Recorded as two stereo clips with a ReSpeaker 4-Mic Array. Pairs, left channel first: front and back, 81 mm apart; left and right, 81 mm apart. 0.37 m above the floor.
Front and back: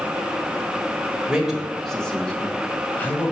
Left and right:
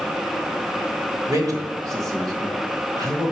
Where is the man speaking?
105° right, 1.2 m; by 3.3 s 60° right, 1.8 m.